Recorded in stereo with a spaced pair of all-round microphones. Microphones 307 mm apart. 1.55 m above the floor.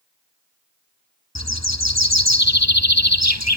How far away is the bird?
About 1.6 m.